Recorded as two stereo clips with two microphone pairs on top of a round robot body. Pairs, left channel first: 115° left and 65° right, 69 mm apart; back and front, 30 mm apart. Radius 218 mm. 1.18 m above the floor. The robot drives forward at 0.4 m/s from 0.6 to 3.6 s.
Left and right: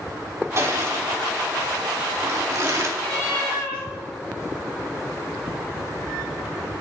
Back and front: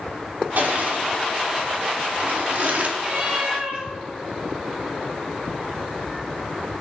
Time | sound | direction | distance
0.6 | crushing | 20° right | 3 m
3.0 | a cat meowing | 50° left | 6.5 m